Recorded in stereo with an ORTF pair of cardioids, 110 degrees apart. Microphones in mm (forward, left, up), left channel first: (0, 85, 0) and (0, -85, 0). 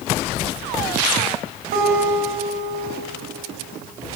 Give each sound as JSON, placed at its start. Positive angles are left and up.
{"t": 1.7, "sound": "a guitar", "azimuth_deg": -70, "distance_m": 6.0}